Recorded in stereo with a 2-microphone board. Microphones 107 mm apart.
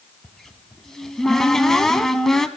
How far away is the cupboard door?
About 0.7 m.